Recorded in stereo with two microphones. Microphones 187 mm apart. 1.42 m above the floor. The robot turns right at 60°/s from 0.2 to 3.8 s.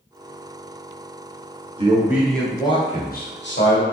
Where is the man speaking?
30° right, 1.0 m; by 3.8 s 90° left, 1.0 m.